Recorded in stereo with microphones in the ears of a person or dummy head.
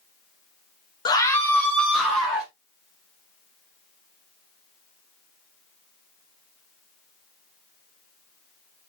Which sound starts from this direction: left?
A scream, at 1.1 s.